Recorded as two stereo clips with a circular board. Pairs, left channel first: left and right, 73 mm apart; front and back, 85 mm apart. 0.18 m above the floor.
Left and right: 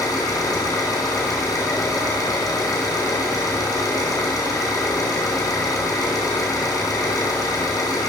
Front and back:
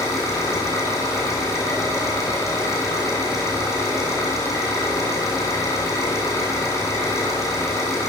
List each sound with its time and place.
0.0 s an engine running: 55° left, 4 m